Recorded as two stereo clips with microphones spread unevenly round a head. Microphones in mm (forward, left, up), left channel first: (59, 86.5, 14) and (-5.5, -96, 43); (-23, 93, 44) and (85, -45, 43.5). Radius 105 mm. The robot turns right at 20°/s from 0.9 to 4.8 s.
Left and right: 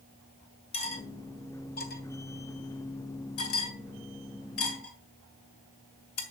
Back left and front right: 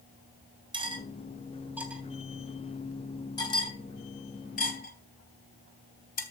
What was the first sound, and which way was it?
Cutlery clinking, 10° left.